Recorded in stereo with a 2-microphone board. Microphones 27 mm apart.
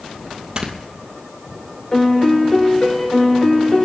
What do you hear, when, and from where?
0.6 s snoring: 30° right (ahead or behind), 2 m
1.9 s a piano: 25° left (ahead or behind), 3.5 m